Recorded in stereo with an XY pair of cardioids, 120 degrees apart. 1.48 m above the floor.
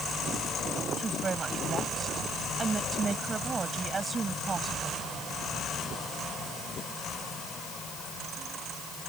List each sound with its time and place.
1.0 s a woman speaking: 30° right